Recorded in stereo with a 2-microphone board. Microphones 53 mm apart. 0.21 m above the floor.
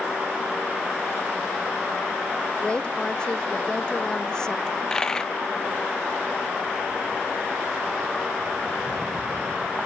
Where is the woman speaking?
20° left (ahead or behind); by 4.6 s 15° left (ahead or behind).